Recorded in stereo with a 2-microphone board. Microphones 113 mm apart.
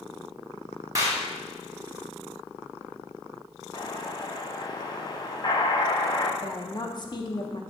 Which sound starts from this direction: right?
A clap, at 0.9 s.